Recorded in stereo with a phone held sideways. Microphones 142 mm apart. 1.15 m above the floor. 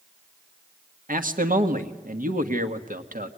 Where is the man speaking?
75° right (ahead or behind), 1.6 m.